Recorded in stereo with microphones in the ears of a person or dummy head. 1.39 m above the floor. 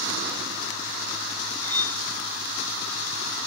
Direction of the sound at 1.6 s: 5° left (ahead or behind).